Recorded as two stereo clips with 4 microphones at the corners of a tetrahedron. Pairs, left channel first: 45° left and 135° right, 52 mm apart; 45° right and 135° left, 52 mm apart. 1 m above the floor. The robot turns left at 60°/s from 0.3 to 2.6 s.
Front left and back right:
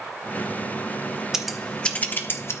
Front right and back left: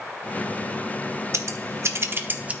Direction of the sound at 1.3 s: 145° left.